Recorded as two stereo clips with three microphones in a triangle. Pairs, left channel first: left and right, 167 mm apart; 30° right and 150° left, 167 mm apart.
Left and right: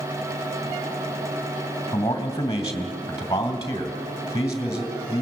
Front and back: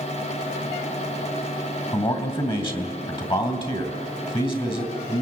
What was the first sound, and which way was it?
A man speaking, 25° left.